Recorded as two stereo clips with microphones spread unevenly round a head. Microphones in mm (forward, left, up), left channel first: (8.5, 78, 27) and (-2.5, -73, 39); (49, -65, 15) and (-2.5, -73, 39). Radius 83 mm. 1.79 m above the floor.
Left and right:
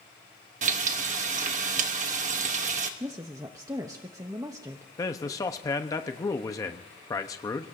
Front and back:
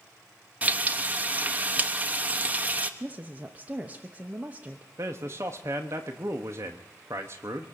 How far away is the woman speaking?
About 0.7 m.